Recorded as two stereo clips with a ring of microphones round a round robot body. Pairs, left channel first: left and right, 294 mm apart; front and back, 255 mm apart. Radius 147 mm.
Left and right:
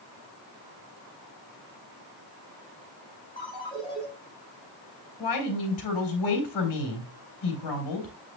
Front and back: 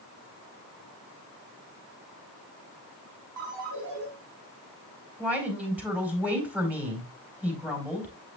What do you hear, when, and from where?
3.4 s a ringtone: 165° left, 5.5 m
5.2 s a woman speaking: 95° left, 4 m